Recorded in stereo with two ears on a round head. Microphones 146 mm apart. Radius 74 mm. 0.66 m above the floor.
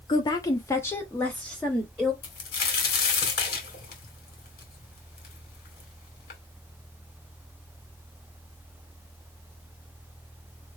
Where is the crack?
65° left (ahead or behind), 2.5 m.